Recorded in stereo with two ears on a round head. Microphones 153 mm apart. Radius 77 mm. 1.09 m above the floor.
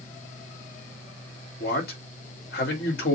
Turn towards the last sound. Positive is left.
turn(degrees=70)  # may be behind; listen again after turning